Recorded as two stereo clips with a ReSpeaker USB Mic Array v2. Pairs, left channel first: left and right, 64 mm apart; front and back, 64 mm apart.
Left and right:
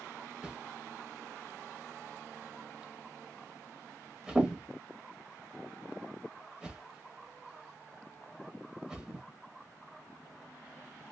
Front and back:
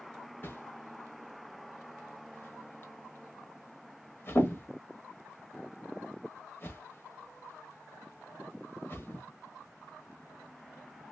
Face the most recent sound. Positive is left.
turn(degrees=-25)